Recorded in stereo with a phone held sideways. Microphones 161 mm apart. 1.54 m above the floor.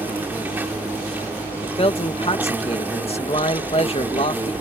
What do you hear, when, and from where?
0.0 s an insect: 10° right (ahead or behind)
1.6 s a man speaking: 40° left (ahead or behind)